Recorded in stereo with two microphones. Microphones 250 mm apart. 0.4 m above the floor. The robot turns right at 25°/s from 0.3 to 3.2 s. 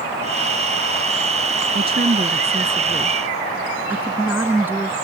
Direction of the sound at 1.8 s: 45° right.